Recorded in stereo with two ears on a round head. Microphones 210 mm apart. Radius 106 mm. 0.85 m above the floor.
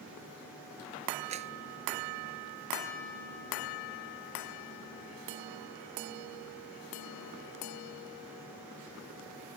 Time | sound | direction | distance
1.3 | a clap | 30° right (ahead or behind) | ?